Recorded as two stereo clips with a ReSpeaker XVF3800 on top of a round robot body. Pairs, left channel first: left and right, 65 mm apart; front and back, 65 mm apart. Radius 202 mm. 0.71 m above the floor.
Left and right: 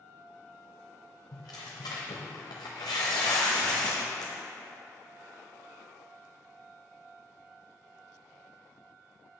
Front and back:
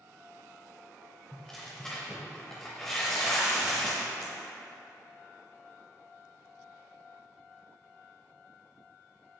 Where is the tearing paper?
85° left, 0.6 m.